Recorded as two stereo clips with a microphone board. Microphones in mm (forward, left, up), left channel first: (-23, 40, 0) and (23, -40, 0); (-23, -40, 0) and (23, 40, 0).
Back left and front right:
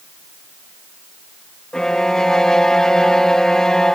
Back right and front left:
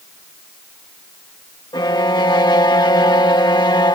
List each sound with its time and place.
1.7 s a violin: 160° right